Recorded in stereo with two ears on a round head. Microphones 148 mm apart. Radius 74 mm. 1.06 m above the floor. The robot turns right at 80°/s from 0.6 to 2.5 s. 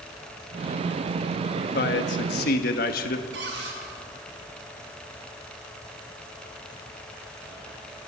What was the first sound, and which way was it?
A man speaking, 45° left.